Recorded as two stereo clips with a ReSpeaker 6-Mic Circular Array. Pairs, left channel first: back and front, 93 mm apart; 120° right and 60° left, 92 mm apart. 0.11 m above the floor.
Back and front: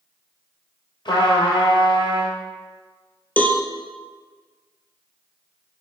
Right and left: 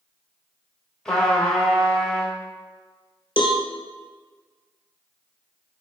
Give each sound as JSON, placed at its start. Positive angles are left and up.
{"t": 1.1, "sound": "a trumpet", "azimuth_deg": 155, "distance_m": 1.1}
{"t": 3.4, "sound": "a cowbell", "azimuth_deg": -110, "distance_m": 0.5}